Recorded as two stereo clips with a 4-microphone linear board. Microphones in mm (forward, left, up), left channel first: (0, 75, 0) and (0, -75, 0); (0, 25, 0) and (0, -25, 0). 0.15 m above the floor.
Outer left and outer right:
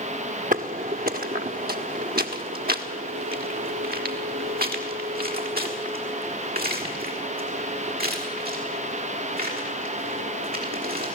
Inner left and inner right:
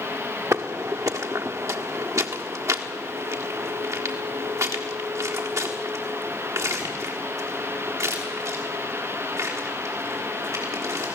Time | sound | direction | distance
0.5 | footsteps | 65° right (ahead or behind) | 1.1 m